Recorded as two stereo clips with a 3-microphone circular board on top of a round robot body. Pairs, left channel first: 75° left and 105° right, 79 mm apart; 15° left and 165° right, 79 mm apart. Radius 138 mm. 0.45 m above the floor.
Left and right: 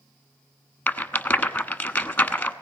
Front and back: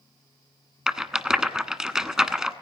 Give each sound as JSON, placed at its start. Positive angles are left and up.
{"t": 0.9, "sound": "a rattle", "azimuth_deg": 125, "distance_m": 1.3}